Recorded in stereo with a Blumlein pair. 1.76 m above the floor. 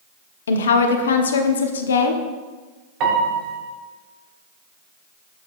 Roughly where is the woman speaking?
Ahead left.